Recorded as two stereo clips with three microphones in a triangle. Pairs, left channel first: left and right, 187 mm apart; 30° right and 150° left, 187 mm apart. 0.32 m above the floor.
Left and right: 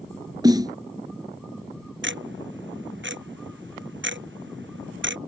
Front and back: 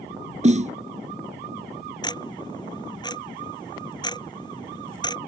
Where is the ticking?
100° right.